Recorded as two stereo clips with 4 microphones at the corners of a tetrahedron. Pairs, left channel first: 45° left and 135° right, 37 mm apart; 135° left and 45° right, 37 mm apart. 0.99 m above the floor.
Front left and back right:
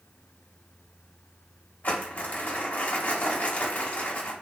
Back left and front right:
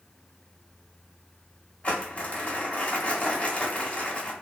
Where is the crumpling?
80° left, 0.9 m.